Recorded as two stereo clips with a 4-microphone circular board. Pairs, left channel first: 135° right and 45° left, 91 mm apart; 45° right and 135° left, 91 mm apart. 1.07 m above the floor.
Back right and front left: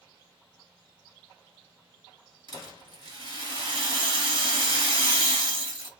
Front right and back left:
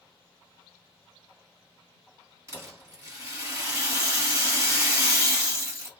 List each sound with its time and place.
2.5 s a rattle: 80° left, 1.4 m